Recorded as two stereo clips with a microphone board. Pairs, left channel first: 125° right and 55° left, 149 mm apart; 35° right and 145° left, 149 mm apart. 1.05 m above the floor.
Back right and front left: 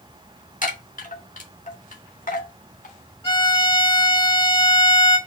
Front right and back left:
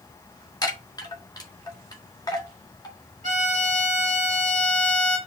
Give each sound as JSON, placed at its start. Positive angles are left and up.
{"t": 0.6, "sound": "a chime", "azimuth_deg": -95, "distance_m": 1.8}
{"t": 3.2, "sound": "a violin", "azimuth_deg": 180, "distance_m": 2.5}